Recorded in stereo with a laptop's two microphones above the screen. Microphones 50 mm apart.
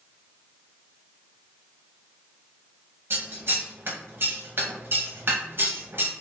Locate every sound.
3.1 s scissors: 50° right (ahead or behind), 0.7 m